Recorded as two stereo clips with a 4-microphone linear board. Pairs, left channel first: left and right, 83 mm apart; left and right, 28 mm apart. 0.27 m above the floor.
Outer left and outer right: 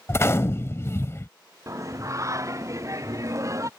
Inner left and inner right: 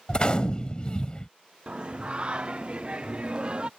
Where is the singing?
40° right (ahead or behind).